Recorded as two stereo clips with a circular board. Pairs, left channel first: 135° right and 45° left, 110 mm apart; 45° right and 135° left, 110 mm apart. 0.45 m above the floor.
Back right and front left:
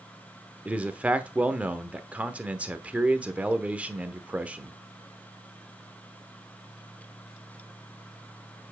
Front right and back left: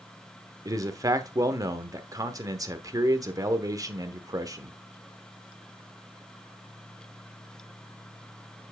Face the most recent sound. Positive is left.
turn(degrees=115)